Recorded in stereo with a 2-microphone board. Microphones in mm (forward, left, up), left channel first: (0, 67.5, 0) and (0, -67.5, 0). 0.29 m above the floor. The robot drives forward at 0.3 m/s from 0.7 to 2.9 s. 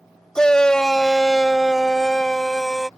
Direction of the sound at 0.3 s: 5° left (ahead or behind).